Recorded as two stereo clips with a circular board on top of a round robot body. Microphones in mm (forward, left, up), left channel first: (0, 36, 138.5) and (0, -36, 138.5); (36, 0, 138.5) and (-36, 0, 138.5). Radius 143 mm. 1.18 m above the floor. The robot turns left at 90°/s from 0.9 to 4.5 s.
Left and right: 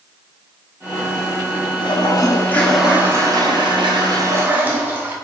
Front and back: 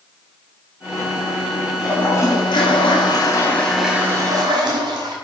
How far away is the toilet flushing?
About 1.3 m.